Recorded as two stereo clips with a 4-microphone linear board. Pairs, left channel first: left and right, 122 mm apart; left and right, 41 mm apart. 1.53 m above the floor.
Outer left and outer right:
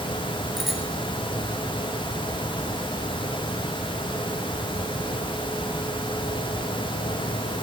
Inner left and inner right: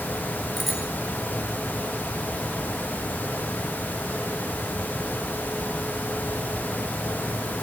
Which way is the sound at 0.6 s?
Centre (ahead or behind).